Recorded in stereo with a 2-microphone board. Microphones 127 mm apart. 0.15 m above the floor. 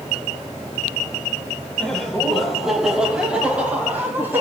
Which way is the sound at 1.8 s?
5° left (ahead or behind).